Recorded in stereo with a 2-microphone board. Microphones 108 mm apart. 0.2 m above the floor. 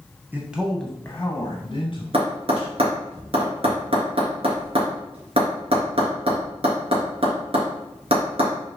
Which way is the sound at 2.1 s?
60° right (ahead or behind).